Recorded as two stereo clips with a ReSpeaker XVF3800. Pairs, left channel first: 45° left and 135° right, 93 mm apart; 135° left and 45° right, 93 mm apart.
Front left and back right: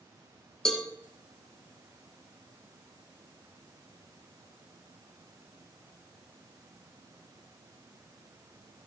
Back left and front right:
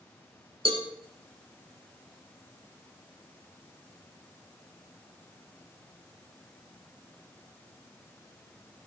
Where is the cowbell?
40° right, 2 m.